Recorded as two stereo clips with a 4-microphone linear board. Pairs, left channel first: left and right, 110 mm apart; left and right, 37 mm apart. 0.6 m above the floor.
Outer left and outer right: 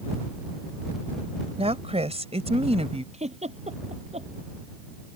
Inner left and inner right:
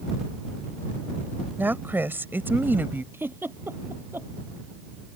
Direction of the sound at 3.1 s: 85° right.